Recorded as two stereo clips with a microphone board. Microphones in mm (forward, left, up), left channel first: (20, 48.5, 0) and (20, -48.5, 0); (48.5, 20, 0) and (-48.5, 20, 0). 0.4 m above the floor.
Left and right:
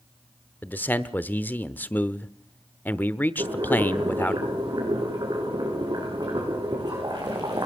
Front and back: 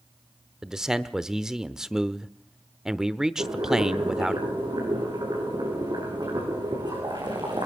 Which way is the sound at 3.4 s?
135° right.